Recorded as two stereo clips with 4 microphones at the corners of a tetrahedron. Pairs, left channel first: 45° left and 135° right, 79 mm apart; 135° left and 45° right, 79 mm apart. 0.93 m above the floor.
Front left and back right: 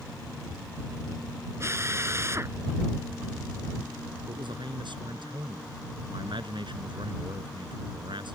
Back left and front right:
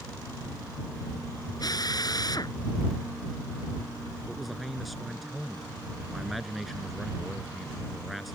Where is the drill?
170° left.